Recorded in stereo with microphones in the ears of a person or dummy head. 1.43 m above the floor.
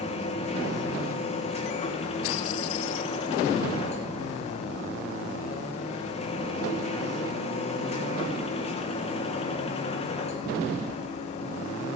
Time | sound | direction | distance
0.0 | a machine running | 25° left (ahead or behind) | 1.4 m